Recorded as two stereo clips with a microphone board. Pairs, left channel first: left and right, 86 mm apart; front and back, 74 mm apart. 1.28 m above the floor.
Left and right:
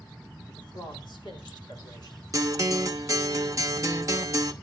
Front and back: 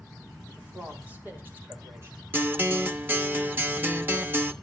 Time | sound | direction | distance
0.5 | a man speaking | 110° left | 4 m
2.3 | a guitar | 125° right | 0.8 m